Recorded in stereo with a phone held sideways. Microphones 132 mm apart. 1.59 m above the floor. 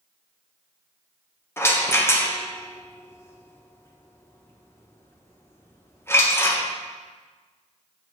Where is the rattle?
20° left (ahead or behind), 1.0 m.